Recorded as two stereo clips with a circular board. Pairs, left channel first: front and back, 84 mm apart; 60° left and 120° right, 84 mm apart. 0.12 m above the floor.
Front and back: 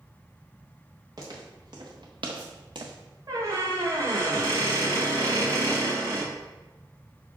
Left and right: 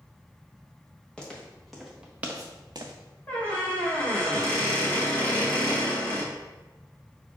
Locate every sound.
1.2 s footsteps: 140° left, 1.8 m; by 2.9 s 145° right, 0.8 m
3.3 s a squeak: 125° left, 1.8 m